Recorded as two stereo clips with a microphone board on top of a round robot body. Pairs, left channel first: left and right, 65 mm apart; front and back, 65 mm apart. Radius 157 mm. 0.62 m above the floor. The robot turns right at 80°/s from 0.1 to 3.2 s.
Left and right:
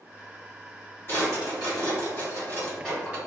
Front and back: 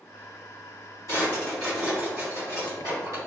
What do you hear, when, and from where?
1.1 s a drawer: 40° left, 1.8 m; by 3.2 s 155° right, 1.8 m